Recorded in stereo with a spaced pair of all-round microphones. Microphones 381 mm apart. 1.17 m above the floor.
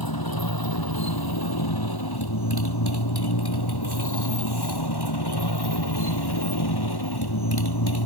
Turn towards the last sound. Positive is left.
turn(degrees=75)  # may be behind; listen again after turning